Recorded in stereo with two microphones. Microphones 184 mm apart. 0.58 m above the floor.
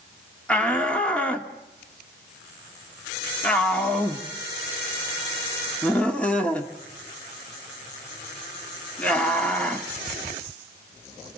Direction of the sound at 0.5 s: 5° left (ahead or behind).